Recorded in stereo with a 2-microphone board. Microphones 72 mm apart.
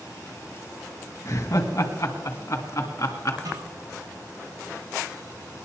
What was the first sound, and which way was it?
Laughter, 45° left (ahead or behind).